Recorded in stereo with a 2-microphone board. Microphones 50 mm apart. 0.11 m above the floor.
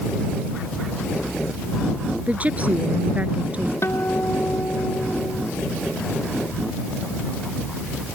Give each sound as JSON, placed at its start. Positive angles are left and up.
{"t": 2.3, "sound": "a woman speaking", "side_deg": -30}
{"t": 3.8, "sound": "a guitar", "side_deg": 60}